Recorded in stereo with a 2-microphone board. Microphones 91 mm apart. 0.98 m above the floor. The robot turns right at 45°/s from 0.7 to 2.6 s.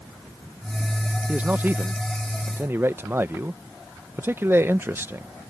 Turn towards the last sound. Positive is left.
turn(degrees=-25)  # may be behind; listen again after turning